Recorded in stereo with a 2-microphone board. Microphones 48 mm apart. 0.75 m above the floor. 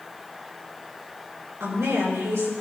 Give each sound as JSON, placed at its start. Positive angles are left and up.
{"t": 1.6, "sound": "a woman speaking", "side_deg": -70, "distance_m": 9.0}